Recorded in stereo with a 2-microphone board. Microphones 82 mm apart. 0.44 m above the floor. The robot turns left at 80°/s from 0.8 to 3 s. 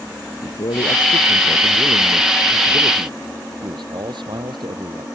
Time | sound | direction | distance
0.4 | a man speaking | 90° left | ?